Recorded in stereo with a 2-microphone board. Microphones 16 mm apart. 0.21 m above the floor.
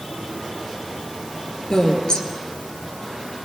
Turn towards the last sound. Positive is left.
turn(degrees=50)  # may be behind; listen again after turning